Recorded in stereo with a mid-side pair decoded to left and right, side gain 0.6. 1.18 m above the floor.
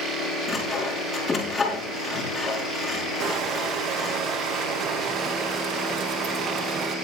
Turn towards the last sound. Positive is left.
turn(degrees=-55)